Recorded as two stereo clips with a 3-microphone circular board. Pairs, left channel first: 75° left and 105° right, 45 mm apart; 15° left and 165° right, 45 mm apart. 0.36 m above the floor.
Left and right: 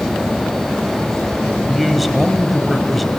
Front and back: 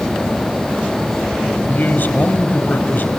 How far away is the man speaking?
About 1.7 m.